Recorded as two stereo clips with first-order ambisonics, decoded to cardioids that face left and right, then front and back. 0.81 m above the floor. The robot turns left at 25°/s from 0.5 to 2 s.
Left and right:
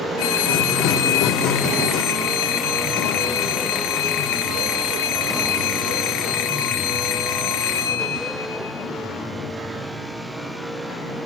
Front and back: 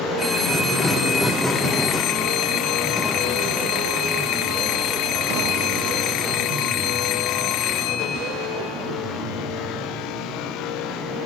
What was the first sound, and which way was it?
A phone ringing, 85° left.